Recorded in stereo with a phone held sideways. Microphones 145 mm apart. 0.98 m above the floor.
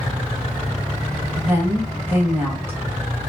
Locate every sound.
1.4 s a woman speaking: 15° right (ahead or behind), 1.3 m